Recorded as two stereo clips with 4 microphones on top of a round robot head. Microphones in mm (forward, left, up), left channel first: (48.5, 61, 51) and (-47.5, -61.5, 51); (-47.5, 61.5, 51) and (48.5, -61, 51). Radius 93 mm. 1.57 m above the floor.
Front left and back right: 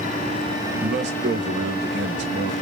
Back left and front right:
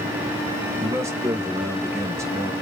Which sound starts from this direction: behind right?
A man speaking, at 0.8 s.